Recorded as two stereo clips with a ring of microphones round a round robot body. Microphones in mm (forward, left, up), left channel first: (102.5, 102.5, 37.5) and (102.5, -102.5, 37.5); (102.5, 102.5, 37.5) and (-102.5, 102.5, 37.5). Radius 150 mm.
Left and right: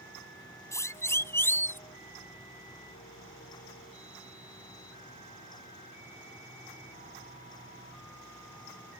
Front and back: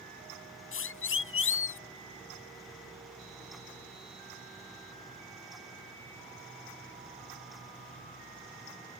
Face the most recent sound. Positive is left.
turn(degrees=10)